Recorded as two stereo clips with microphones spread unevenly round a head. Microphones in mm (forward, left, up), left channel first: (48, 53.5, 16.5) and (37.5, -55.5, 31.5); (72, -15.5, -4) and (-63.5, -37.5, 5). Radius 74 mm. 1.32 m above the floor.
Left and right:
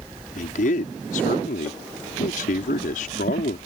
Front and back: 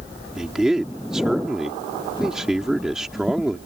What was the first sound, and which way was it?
A man speaking, 105° left.